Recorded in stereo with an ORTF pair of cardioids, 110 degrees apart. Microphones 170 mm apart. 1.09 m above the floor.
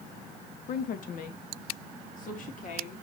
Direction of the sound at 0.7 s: 55° left.